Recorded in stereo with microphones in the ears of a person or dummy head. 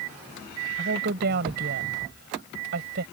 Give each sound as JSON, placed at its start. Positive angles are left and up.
{"t": 0.8, "sound": "a woman speaking", "side_deg": -55}